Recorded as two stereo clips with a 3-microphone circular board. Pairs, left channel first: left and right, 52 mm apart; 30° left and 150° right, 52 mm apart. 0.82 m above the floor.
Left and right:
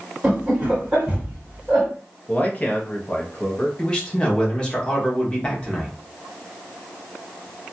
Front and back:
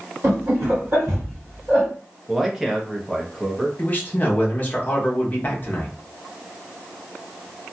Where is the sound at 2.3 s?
130° left, 0.7 m.